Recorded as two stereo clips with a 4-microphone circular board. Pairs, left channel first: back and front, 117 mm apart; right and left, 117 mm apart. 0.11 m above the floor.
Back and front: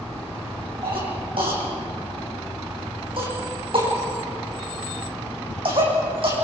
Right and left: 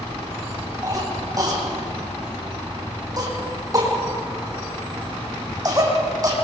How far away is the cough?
About 6.5 m.